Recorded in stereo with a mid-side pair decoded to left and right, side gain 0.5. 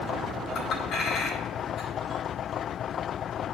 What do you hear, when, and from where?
0.6 s a clink: 65° left, 2.5 m